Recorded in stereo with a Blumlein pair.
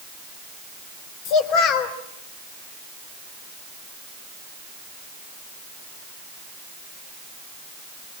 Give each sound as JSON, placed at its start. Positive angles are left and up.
{"t": 1.2, "sound": "a child speaking", "azimuth_deg": 40, "distance_m": 3.5}